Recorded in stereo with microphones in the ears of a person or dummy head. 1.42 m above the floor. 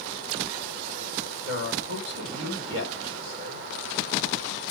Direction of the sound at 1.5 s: 80° right.